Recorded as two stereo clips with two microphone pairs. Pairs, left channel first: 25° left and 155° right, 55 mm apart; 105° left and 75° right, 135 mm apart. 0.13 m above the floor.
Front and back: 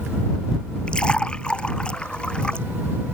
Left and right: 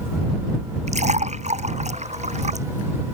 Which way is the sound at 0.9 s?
45° right.